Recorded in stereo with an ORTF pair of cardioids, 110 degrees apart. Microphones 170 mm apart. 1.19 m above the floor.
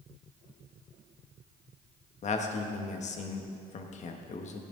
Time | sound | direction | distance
2.2 | a man speaking | 45° left | 1.4 m